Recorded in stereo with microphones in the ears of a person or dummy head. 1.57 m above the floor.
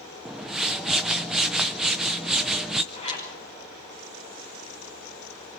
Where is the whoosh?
Centre (ahead or behind), 0.6 m.